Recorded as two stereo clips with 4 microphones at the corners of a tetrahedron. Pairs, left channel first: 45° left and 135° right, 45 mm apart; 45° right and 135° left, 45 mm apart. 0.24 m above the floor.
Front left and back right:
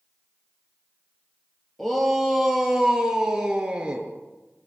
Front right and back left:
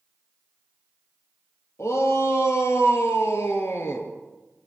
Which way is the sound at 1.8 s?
40° right.